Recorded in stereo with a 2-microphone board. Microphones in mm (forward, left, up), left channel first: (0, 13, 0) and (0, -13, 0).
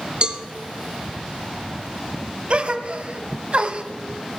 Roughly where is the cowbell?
Right.